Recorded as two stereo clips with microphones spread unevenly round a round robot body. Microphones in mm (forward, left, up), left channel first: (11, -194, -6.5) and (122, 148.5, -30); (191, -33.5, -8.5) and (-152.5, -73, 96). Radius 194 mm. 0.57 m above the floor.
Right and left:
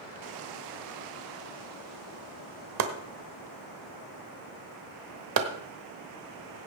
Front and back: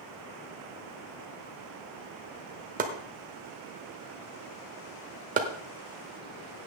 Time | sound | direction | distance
2.8 | chopping | 115° left | 1.1 m